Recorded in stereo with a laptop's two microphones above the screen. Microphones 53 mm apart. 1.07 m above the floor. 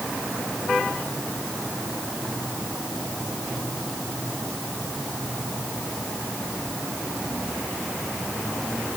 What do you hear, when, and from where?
Only background noise.